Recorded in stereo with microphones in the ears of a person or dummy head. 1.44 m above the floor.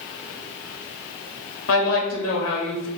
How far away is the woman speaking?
About 0.9 m.